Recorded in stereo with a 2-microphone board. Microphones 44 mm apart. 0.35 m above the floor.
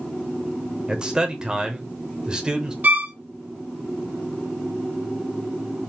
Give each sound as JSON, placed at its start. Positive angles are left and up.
{"t": 0.9, "sound": "a man speaking", "side_deg": -20, "distance_m": 0.9}
{"t": 2.8, "sound": "a violin", "side_deg": -45, "distance_m": 0.8}